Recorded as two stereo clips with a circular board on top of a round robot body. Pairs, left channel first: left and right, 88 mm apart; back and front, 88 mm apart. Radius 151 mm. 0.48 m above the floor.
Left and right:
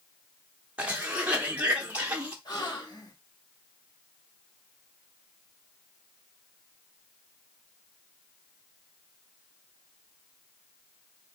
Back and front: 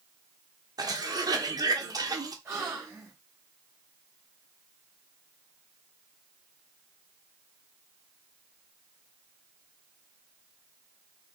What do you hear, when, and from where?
0.8 s a cough: 20° right, 1.1 m
2.5 s a gasp: 60° left, 2.5 m